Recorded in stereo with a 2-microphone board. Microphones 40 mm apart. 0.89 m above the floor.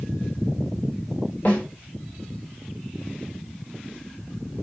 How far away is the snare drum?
About 1.4 m.